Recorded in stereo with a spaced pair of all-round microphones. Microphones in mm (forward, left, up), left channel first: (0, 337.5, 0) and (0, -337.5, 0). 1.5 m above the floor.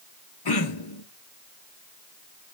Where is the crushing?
No crushing in this recording.